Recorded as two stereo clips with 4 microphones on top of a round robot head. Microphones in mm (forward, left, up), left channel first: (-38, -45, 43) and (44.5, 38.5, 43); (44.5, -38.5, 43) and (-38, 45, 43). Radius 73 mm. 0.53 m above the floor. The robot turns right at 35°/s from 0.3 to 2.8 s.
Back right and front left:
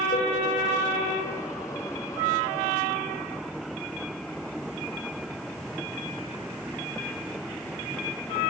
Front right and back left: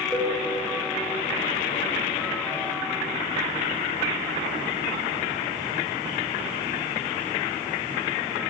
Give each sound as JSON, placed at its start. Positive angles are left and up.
{"t": 0.1, "sound": "a cowbell", "azimuth_deg": -140, "distance_m": 1.1}